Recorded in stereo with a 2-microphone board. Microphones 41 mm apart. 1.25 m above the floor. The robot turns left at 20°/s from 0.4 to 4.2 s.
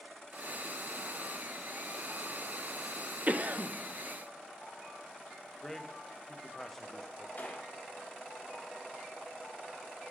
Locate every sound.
3.3 s a cough: 35° right (ahead or behind), 0.6 m; by 3.7 s 45° right (ahead or behind), 0.6 m
5.6 s a man speaking: 5° left (ahead or behind), 0.6 m
7.4 s a gunshot: 40° left (ahead or behind), 1.2 m